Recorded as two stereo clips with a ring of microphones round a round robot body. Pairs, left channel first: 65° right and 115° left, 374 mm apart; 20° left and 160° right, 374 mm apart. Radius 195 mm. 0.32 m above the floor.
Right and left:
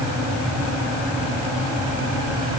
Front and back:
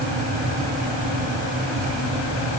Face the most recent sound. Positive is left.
No sound to turn to.